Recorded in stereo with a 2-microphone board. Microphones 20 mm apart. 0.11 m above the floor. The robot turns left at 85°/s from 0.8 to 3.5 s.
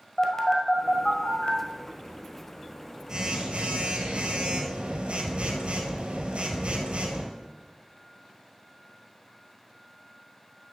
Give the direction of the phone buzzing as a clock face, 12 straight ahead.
7 o'clock.